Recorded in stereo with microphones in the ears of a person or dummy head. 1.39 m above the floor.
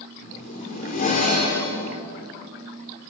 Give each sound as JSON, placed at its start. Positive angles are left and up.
{"t": 0.2, "sound": "a zipper", "side_deg": 40, "distance_m": 5.0}